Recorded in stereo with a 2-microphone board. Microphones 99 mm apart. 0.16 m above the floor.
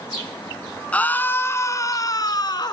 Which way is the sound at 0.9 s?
15° left (ahead or behind).